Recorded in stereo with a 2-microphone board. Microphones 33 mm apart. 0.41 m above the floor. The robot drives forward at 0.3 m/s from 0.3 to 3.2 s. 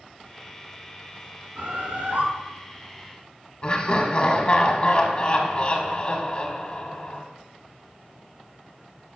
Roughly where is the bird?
Right.